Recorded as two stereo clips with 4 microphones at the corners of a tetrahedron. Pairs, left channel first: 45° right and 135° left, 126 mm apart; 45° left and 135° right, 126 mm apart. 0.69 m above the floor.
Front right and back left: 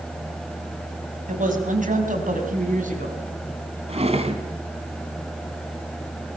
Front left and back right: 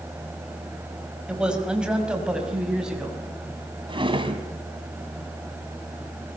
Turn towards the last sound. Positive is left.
turn(degrees=175)